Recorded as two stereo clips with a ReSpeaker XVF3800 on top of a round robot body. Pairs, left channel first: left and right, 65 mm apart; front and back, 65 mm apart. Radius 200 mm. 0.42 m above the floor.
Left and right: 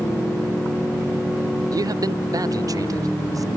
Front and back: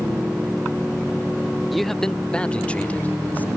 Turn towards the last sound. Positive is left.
turn(degrees=-65)